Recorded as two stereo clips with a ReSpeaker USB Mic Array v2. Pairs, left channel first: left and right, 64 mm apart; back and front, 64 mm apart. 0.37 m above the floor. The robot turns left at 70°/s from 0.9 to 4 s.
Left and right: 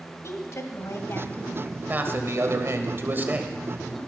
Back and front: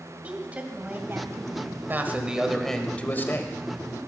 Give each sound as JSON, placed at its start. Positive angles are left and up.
{"t": 0.2, "sound": "a woman speaking", "azimuth_deg": 65, "distance_m": 1.9}
{"t": 1.9, "sound": "a man speaking", "azimuth_deg": -40, "distance_m": 1.6}